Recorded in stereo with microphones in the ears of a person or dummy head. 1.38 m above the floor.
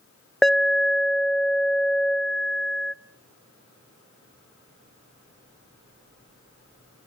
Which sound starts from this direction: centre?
An alarm, at 0.4 s.